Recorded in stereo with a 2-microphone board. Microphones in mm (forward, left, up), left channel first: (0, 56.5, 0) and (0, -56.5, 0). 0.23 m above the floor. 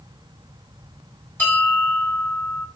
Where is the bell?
20° left (ahead or behind), 1.7 m.